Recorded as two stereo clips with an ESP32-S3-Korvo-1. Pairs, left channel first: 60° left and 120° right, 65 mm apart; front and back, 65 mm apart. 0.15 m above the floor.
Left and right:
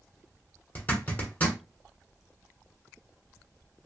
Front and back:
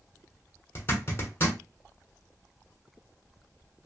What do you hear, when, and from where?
0.8 s a zipper: 20° left, 1.2 m